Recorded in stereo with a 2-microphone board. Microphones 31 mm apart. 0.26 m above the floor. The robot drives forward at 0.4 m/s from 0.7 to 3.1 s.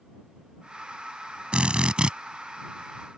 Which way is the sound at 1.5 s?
40° right (ahead or behind).